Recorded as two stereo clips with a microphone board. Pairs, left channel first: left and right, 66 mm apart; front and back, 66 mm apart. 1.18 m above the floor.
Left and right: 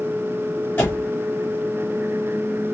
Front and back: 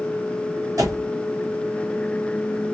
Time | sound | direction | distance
0.8 | a door slam | 150° left | 2.5 m